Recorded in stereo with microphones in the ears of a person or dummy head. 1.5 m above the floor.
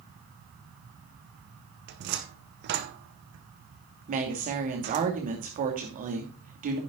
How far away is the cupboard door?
About 0.9 m.